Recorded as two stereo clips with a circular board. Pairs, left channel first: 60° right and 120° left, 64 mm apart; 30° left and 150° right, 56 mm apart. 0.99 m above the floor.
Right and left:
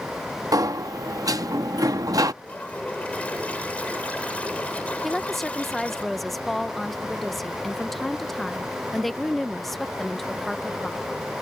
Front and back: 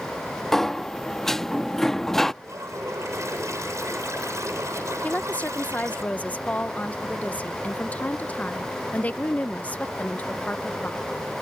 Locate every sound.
0.5 s a sliding door: 110° left
2.4 s a toilet flushing: 130° right
5.0 s a woman speaking: 25° left